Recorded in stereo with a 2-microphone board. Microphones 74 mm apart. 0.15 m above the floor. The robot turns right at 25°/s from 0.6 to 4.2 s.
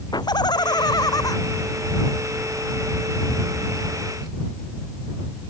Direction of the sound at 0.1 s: 75° left (ahead or behind).